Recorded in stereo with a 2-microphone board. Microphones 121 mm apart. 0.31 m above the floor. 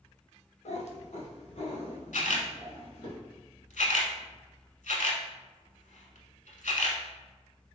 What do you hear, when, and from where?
0.7 s a cat meowing: 65° left (ahead or behind), 0.5 m; by 3.1 s 60° left (ahead or behind), 2 m
2.1 s a camera shutter: 85° left, 0.8 m